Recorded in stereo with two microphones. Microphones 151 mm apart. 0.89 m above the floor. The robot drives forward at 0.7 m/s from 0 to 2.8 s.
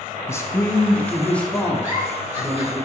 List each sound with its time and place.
0.3 s a man speaking: 20° left (ahead or behind), 0.6 m; by 2.8 s 5° left (ahead or behind), 2.5 m
1.8 s a giggle: 20° right (ahead or behind), 4 m